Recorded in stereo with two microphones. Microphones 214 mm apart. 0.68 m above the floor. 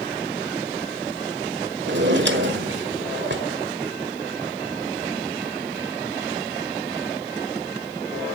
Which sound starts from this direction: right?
A drawer, at 1.9 s.